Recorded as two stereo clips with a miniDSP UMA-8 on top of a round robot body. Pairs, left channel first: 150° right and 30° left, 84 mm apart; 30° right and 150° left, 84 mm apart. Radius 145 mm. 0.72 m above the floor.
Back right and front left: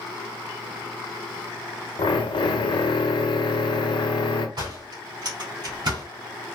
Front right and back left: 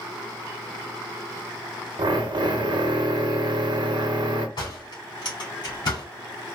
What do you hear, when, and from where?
2.0 s a drill: 175° right, 0.9 m
4.6 s a door slam: straight ahead, 4 m